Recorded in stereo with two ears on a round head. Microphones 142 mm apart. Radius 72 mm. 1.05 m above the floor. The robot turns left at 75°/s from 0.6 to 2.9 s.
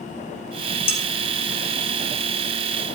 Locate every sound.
0.9 s dishes clattering: 15° left (ahead or behind), 2.5 m; by 1.0 s 25° left (ahead or behind), 2.5 m